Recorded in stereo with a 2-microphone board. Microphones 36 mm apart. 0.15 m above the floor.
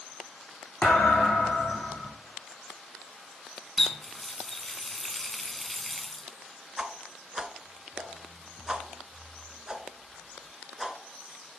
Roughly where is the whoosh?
Right.